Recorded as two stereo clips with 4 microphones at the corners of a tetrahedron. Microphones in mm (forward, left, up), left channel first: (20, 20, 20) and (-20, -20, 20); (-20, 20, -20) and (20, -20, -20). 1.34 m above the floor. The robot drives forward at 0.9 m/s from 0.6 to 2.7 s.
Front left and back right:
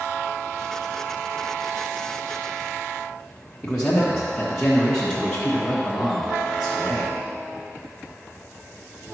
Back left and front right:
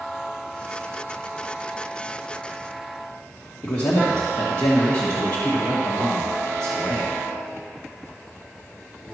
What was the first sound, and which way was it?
A man speaking, 120° left.